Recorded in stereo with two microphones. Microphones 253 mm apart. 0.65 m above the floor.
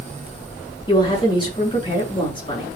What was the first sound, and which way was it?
A woman speaking, 20° left (ahead or behind).